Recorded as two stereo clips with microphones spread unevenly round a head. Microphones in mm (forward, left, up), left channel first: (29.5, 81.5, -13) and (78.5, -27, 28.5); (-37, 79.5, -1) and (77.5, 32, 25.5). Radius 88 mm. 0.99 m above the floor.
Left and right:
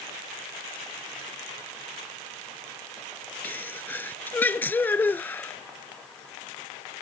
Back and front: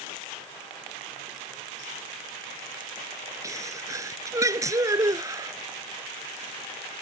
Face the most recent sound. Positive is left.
turn(degrees=40)